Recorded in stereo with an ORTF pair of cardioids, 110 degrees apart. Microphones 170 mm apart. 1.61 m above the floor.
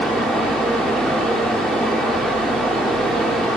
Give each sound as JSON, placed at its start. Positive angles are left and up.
{"t": 0.0, "sound": "a fan", "azimuth_deg": 5, "distance_m": 0.8}